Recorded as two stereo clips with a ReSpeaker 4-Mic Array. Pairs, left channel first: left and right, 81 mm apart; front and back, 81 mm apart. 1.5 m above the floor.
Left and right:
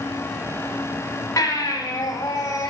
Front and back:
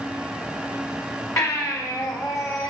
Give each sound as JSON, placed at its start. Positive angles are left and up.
{"t": 1.4, "sound": "a baby crying", "azimuth_deg": 45, "distance_m": 5.0}